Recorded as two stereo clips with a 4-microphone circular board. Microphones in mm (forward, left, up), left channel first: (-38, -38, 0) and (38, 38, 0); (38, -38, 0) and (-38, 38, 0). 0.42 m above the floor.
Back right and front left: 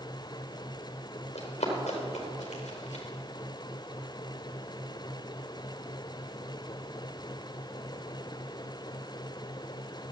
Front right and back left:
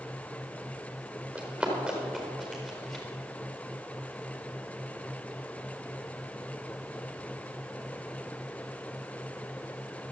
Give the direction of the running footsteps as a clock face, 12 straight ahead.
5 o'clock.